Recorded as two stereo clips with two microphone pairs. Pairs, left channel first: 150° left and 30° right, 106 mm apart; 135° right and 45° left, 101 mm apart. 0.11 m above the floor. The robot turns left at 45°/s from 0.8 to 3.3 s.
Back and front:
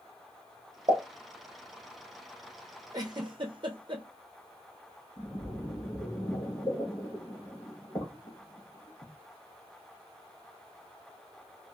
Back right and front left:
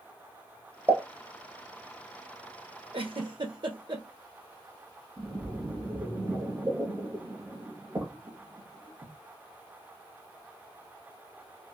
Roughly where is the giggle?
Ahead left.